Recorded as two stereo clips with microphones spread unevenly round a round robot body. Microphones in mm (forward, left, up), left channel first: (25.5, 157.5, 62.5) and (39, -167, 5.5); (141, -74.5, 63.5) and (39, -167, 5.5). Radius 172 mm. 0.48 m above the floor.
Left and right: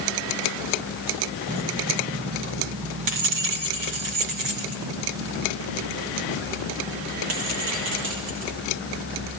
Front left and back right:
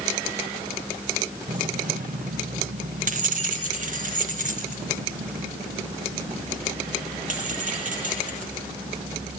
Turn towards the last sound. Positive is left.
turn(degrees=-115)